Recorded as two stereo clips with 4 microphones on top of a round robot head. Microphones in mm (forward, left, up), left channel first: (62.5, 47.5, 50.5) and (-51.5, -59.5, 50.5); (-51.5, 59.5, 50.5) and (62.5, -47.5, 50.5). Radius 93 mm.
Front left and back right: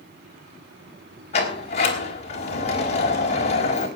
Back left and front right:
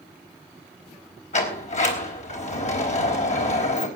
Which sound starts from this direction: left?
A sliding door, at 1.3 s.